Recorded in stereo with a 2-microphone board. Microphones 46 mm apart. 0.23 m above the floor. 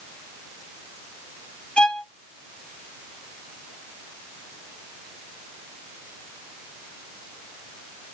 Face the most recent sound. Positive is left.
turn(degrees=25)  # may be behind; listen again after turning